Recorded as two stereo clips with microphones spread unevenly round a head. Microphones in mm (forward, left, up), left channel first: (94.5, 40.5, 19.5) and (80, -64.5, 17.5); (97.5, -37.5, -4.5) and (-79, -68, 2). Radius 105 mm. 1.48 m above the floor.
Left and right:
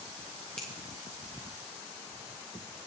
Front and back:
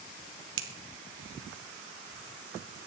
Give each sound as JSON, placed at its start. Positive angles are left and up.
{"t": 0.6, "sound": "a finger snap", "azimuth_deg": 170, "distance_m": 1.3}